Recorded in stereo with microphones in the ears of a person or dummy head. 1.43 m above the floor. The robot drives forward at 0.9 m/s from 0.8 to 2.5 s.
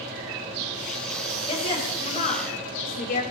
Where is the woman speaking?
40° left (ahead or behind), 4 m; by 3.2 s 50° left (ahead or behind), 3 m.